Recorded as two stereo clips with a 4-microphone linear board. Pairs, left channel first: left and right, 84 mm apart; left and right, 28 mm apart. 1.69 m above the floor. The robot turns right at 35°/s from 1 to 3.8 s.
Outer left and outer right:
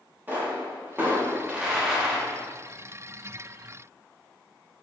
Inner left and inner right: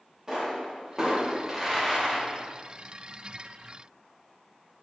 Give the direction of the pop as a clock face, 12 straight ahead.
1 o'clock.